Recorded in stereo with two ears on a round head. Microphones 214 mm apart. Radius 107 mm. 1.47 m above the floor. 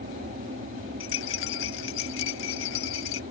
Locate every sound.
0.0 s an aircraft: 35° right (ahead or behind)
1.0 s a rattle: 60° left (ahead or behind)